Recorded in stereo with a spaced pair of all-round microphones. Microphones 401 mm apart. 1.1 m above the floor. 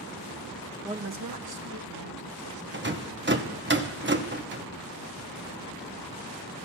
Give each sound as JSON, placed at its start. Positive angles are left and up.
{"t": 0.8, "sound": "a woman speaking", "side_deg": -5, "distance_m": 0.6}
{"t": 2.7, "sound": "a rattle", "side_deg": -30, "distance_m": 0.9}